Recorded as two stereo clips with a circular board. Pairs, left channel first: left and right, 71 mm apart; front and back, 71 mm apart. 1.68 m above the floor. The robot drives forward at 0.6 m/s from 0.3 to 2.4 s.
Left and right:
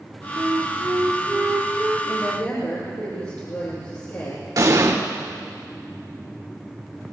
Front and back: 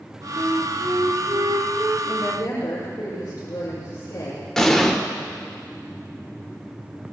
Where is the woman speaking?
40° left, 7.5 m.